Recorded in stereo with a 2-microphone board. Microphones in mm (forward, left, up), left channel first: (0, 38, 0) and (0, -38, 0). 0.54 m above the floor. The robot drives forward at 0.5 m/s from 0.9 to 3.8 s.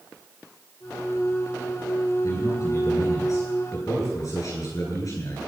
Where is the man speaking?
45° left (ahead or behind), 9.5 m.